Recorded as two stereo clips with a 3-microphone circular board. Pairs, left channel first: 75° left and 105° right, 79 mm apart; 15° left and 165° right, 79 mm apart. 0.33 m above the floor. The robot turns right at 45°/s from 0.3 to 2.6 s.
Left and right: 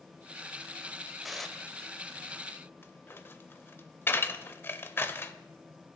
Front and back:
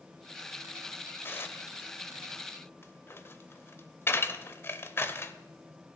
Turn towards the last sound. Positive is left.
turn(degrees=40)